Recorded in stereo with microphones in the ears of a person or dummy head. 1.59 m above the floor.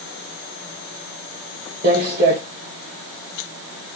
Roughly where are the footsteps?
Right.